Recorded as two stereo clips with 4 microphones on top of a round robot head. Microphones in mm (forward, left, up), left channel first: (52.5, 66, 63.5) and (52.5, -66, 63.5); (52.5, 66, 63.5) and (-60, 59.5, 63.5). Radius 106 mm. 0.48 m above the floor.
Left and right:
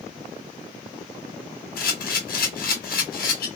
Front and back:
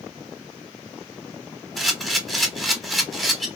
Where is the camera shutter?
90° left, 1.2 m.